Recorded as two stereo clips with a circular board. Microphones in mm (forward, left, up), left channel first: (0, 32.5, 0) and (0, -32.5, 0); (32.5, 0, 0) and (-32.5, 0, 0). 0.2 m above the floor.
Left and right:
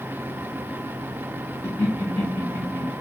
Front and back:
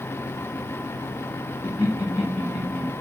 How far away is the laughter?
About 1.1 m.